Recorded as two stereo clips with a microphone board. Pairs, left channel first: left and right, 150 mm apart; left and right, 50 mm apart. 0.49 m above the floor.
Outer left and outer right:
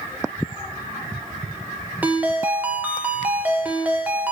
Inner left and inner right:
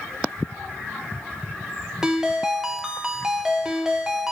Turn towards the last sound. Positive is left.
turn(degrees=-10)  # may be behind; listen again after turning